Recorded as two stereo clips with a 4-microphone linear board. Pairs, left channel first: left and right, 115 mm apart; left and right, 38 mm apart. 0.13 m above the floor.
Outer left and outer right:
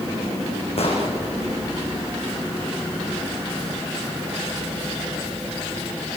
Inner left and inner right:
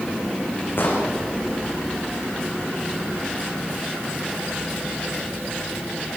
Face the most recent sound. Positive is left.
turn(degrees=60)  # may be behind; listen again after turning